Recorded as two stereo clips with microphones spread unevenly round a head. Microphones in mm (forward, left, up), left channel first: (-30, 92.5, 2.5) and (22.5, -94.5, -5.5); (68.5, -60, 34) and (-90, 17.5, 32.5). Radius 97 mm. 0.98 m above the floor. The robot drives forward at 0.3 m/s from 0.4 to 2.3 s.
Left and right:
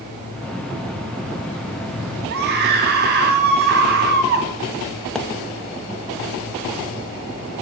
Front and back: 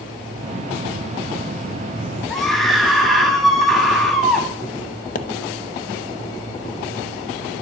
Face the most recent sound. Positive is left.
turn(degrees=20)